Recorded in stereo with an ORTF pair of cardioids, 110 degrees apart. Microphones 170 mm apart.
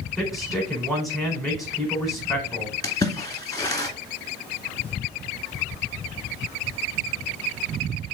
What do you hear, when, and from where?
0.2 s a man speaking: straight ahead, 4.5 m
2.8 s a splash: 20° left, 2 m